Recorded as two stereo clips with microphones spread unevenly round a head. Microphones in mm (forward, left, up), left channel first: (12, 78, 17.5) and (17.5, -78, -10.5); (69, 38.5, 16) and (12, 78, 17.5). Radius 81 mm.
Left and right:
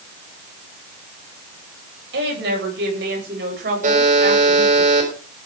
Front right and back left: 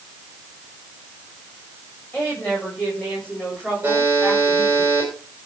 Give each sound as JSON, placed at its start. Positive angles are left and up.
{"t": 2.1, "sound": "a woman speaking", "azimuth_deg": -115, "distance_m": 8.5}
{"t": 3.8, "sound": "a buzzer", "azimuth_deg": -135, "distance_m": 6.0}